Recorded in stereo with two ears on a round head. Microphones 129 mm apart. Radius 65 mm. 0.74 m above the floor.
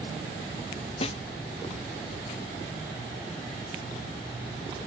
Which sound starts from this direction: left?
A snare drum, at 1.0 s.